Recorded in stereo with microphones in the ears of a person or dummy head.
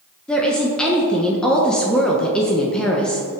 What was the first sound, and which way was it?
A woman speaking, 5° left (ahead or behind).